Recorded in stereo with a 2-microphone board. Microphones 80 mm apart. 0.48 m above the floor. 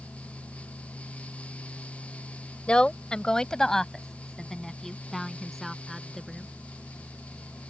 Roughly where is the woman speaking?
Centre.